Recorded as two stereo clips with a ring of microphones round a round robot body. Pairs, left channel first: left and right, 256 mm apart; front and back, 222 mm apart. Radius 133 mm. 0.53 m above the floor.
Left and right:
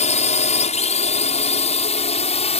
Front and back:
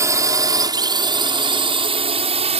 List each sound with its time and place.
0.0 s a drone: 120° left; by 2.6 s 140° left